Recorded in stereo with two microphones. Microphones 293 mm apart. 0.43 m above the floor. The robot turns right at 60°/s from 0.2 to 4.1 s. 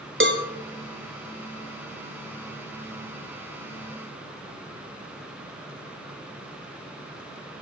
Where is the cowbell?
40° right (ahead or behind), 1.3 m; by 0.5 s 25° right (ahead or behind), 1.3 m.